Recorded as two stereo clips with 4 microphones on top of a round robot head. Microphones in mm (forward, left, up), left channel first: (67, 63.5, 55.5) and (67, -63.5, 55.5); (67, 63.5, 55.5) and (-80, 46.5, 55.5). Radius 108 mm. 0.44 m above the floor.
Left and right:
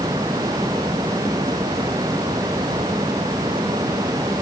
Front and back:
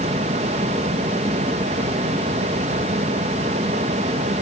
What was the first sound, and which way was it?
Only background noise.